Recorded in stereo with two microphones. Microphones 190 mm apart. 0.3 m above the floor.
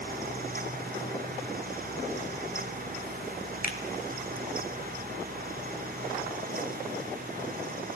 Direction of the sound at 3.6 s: 45° left (ahead or behind).